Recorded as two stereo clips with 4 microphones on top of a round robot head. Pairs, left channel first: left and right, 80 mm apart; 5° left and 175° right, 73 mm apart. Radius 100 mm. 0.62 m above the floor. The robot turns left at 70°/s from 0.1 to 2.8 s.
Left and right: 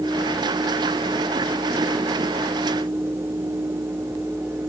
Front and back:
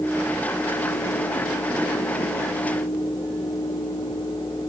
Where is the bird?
I don't hear a bird.